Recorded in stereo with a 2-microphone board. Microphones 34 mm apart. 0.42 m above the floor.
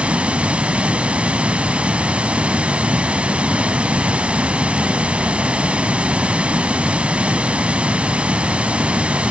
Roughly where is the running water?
Right.